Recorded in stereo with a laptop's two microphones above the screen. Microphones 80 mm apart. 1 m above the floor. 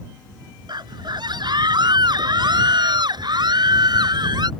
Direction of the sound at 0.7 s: 60° right (ahead or behind).